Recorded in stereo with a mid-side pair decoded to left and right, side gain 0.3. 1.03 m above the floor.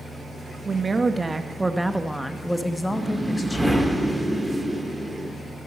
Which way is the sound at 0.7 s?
45° right.